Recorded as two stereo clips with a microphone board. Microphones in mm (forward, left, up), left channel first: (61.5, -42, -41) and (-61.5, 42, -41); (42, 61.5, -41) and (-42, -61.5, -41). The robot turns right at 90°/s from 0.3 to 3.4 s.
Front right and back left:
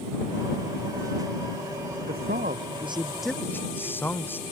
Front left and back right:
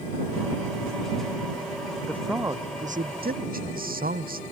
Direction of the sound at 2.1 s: 130° left.